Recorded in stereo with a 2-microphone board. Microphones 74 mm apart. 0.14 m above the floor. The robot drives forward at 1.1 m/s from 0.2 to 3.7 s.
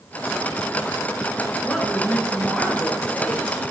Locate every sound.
1.6 s a woman speaking: 15° left (ahead or behind), 1.9 m; by 3.6 s 5° left (ahead or behind), 3.5 m